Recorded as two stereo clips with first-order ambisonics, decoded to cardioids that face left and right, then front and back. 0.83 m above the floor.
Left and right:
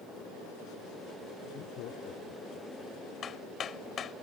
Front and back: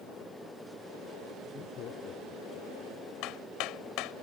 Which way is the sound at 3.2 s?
30° left.